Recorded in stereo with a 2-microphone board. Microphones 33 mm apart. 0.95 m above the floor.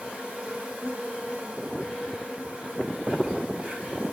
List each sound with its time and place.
0.0 s an insect: 35° right (ahead or behind), 5 m